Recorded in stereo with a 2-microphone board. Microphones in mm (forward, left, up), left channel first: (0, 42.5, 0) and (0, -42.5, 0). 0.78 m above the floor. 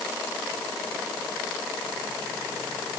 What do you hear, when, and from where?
Only background noise.